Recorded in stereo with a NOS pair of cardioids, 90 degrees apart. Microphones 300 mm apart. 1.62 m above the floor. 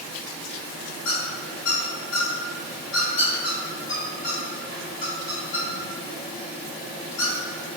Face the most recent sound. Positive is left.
turn(degrees=70)